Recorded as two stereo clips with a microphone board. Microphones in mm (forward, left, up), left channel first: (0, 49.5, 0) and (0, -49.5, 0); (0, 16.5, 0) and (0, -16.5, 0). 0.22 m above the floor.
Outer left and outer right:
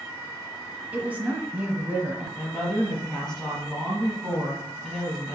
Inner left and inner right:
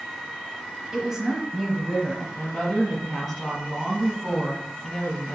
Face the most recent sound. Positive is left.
turn(degrees=5)  # may be behind; listen again after turning